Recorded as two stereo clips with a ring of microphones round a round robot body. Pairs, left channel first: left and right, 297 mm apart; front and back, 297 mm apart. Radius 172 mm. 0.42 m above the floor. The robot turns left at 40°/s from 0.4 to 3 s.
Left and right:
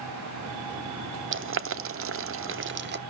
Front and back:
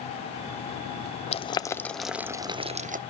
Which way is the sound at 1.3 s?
60° right.